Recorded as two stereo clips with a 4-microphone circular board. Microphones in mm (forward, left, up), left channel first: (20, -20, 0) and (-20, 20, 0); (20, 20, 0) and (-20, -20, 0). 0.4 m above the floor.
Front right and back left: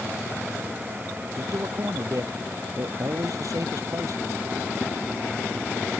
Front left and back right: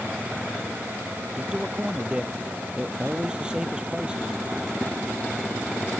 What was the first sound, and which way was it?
A man speaking, 150° left.